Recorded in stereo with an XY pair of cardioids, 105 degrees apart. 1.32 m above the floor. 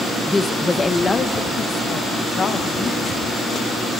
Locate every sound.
0.3 s a woman speaking: 15° left, 0.9 m; by 3.2 s 40° left, 2.5 m